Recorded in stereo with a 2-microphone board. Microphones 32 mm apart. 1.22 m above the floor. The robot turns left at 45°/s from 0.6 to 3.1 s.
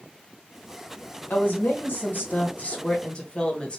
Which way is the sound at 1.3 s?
115° left.